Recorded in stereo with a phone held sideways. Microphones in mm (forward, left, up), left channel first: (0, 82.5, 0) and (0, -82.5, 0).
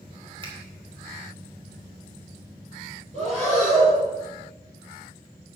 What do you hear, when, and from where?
0.4 s a finger snap: 35° right (ahead or behind), 2.5 m
3.1 s breathing: 45° right (ahead or behind), 5.5 m